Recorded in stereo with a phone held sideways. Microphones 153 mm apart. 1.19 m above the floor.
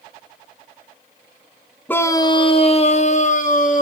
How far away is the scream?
About 0.6 m.